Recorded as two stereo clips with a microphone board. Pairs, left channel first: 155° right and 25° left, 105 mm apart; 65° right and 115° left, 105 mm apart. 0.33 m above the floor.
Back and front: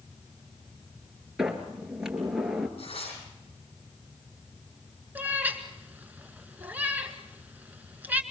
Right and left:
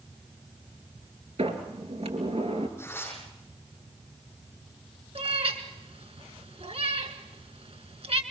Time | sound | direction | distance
1.4 | a sliding door | 105° left | 2.5 m
2.8 | tearing paper | 135° right | 9 m
5.2 | a cat meowing | 95° left | 1.7 m